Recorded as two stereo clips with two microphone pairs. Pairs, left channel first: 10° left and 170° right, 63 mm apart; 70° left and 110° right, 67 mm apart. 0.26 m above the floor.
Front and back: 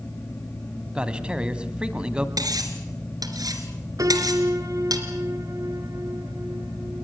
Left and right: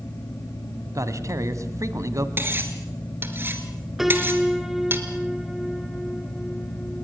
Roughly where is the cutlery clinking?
Behind.